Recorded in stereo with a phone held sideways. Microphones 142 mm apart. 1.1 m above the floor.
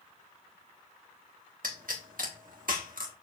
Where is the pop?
80° right, 1.7 m.